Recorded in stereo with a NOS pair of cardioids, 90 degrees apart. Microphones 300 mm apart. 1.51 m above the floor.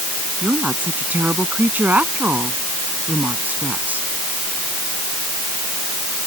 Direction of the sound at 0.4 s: 5° right.